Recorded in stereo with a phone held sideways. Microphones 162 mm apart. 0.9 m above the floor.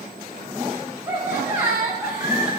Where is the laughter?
25° right (ahead or behind), 4 m; by 2.5 s 30° right (ahead or behind), 3 m.